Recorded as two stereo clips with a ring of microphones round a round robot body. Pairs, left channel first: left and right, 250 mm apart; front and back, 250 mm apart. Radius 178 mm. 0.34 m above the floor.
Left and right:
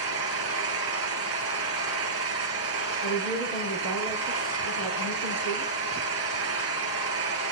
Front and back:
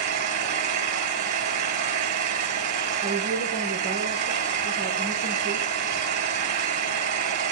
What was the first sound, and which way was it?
An engine running, 145° right.